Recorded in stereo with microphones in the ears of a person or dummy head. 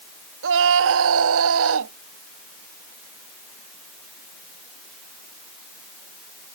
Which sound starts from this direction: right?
A scream, at 0.4 s.